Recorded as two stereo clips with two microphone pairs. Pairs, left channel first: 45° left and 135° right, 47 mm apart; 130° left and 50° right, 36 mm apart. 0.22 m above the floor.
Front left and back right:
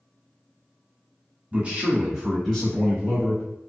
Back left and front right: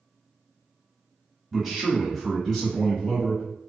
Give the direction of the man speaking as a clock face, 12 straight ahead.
4 o'clock.